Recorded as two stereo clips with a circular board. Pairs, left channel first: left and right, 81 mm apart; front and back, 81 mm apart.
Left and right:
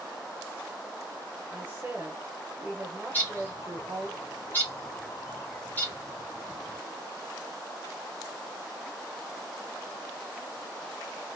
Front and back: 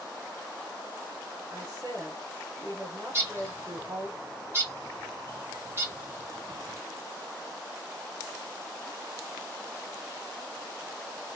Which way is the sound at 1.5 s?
145° right.